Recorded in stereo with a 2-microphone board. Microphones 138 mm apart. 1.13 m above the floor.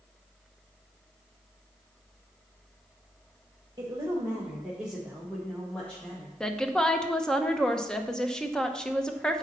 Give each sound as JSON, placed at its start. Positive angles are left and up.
{"t": 3.8, "sound": "a woman speaking", "side_deg": -25, "distance_m": 1.5}
{"t": 6.4, "sound": "a woman speaking", "side_deg": 5, "distance_m": 0.9}